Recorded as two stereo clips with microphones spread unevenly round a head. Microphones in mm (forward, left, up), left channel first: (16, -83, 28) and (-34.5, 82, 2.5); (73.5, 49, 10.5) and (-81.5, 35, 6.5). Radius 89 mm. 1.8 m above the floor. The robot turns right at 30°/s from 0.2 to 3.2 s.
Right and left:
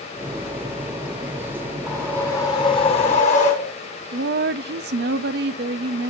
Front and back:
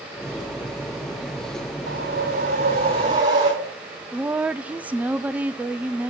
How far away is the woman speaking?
About 0.5 m.